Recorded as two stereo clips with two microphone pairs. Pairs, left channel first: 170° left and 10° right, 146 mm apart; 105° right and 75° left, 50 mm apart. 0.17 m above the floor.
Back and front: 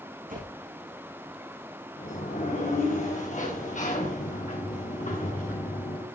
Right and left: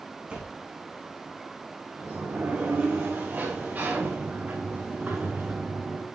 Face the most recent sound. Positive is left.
turn(degrees=135)